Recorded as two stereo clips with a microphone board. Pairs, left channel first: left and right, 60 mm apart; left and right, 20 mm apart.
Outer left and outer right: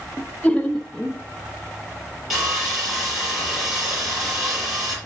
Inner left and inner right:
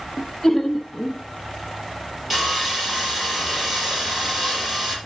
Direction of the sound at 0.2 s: 25° left (ahead or behind).